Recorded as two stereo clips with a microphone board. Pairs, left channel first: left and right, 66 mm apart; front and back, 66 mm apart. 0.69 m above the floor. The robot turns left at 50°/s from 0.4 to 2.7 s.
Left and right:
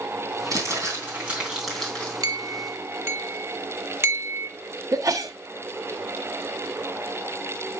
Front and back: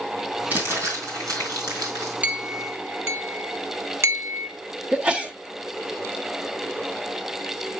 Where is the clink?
115° right, 1.3 m; by 4.5 s 140° right, 1.3 m.